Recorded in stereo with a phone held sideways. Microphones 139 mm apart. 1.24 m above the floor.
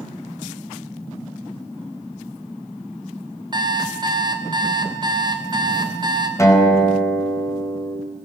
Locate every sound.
3.5 s an alarm clock: 30° right (ahead or behind), 3.5 m
6.4 s a guitar: 20° left (ahead or behind), 5 m